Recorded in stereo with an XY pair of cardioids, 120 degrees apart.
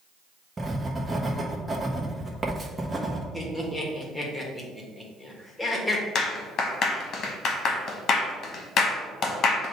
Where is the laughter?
15° left, 1.6 m.